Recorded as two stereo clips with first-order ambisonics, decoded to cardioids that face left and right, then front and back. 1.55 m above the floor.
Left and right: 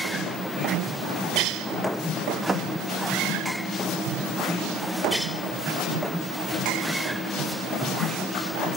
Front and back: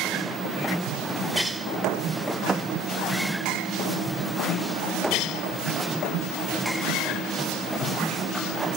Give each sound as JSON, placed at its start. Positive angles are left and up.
{"t": 2.5, "sound": "a thud", "azimuth_deg": -130, "distance_m": 0.9}